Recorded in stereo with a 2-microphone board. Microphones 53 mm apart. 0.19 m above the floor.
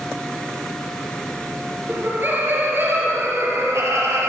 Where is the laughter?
35° right (ahead or behind), 3.5 m; by 4.3 s 65° right (ahead or behind), 4 m.